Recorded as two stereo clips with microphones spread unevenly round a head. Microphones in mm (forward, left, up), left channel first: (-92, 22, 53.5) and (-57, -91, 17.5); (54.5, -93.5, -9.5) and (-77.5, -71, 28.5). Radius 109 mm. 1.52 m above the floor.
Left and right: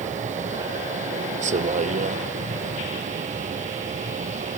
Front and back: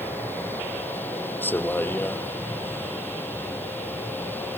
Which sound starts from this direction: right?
A vehicle, at 0.0 s.